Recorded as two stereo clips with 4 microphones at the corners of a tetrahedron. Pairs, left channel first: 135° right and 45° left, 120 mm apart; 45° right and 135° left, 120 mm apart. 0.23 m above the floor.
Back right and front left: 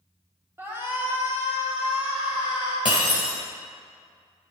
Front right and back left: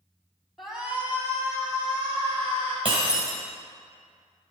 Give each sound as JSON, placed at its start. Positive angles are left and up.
{"t": 0.6, "sound": "a shout", "azimuth_deg": 45, "distance_m": 1.4}
{"t": 2.9, "sound": "breaking glass", "azimuth_deg": 180, "distance_m": 2.5}